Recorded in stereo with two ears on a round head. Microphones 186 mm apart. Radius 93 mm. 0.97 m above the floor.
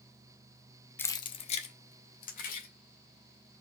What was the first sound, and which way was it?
Keys jangling, 10° left (ahead or behind).